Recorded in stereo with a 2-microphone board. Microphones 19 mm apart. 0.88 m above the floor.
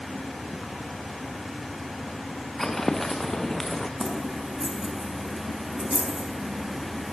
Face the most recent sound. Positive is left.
turn(degrees=-25)  # may be behind; listen again after turning